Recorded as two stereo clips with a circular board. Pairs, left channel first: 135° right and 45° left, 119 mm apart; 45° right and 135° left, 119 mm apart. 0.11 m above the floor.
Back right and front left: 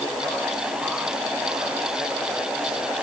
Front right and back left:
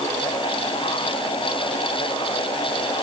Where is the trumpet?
I don't hear a trumpet.